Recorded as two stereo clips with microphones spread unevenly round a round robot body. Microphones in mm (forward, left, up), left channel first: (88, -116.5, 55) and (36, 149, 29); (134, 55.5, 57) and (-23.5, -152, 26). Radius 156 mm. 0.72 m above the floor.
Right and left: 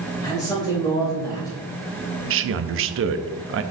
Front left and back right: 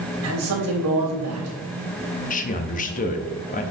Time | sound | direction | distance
0.2 | a man speaking | 155° right | 3 m
2.3 | a man speaking | 115° left | 0.7 m